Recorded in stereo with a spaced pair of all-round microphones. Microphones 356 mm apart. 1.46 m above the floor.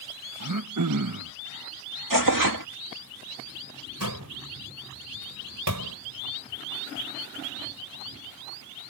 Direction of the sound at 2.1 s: 70° right (ahead or behind).